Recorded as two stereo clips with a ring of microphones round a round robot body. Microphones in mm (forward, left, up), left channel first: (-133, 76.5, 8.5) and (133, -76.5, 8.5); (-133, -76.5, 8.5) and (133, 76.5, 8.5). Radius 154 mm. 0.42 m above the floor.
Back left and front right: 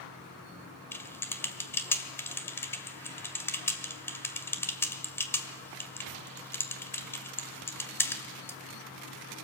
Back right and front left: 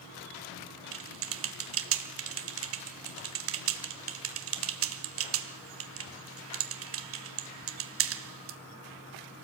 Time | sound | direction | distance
0.9 | typing on a keyboard | 70° left | 1.7 m